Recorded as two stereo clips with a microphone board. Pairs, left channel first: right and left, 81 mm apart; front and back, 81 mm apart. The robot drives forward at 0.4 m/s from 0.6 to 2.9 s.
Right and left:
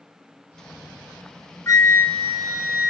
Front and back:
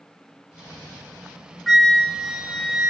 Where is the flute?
90° right, 1.2 m; by 2.9 s 125° right, 1.3 m.